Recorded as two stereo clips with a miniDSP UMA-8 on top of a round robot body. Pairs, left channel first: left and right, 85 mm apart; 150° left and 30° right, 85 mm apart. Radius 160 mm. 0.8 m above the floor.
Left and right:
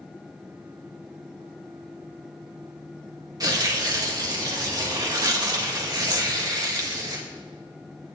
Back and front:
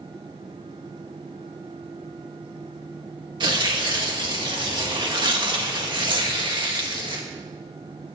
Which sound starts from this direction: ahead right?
Tearing paper, at 3.4 s.